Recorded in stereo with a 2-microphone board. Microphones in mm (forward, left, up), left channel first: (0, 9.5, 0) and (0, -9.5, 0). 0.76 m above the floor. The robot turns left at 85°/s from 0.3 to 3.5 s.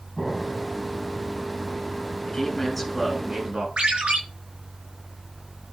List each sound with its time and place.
0.2 s an explosion: 175° left, 7 m; by 0.7 s 140° left, 7 m
2.2 s a man speaking: 55° left, 8 m; by 3.7 s 50° right, 8 m
3.8 s a ringtone: 85° right, 6 m